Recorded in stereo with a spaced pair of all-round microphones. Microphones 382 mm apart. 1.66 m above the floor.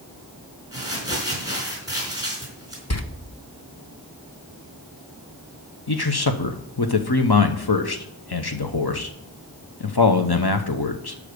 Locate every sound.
0.7 s crumpling: 10° right (ahead or behind), 4 m
2.9 s a door slam: 40° left (ahead or behind), 0.9 m
5.9 s a man speaking: 75° left (ahead or behind), 1.0 m